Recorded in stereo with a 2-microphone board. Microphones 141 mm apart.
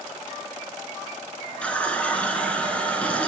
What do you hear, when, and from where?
1.6 s a running tap: 10° left (ahead or behind), 0.8 m